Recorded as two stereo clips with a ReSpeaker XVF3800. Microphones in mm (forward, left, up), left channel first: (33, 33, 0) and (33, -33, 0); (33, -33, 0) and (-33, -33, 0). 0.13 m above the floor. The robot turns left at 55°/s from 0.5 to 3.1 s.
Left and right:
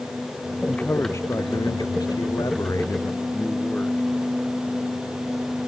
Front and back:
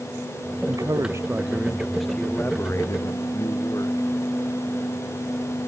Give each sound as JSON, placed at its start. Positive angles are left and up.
{"t": 0.7, "sound": "a man speaking", "azimuth_deg": 165}